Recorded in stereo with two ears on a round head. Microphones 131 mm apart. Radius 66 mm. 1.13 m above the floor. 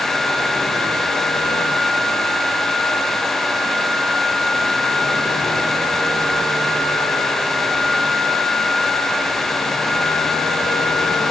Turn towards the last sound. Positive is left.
No sound to turn to.